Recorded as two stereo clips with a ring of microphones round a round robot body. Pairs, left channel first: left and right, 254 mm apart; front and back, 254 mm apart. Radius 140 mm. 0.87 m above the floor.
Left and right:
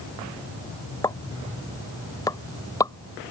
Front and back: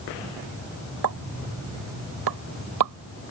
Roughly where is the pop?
Behind.